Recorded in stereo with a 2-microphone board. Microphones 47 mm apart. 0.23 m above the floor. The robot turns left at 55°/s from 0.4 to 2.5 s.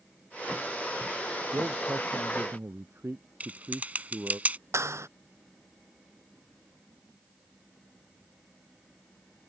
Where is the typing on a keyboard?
35° right (ahead or behind).